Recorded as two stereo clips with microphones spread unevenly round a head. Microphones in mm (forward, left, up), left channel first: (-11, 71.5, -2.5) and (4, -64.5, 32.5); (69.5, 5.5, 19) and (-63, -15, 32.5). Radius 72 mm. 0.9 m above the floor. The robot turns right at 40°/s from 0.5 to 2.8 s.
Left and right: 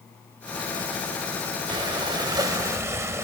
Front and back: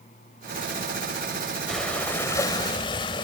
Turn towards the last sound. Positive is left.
turn(degrees=-40)